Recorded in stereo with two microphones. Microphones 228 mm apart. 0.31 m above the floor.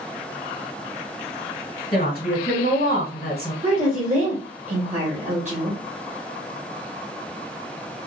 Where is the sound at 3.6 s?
30° right (ahead or behind), 1.5 m.